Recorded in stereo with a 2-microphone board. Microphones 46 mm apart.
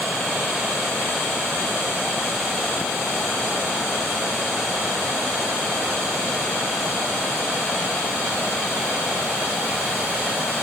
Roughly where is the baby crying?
I don't hear a baby crying.